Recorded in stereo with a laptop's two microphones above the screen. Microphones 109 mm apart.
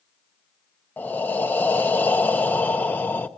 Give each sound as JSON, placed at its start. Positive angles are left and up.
{"t": 1.0, "sound": "breathing", "side_deg": 15, "distance_m": 0.8}